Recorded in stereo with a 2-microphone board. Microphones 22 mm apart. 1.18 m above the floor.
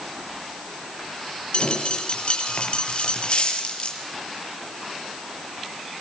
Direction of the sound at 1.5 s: 60° left (ahead or behind).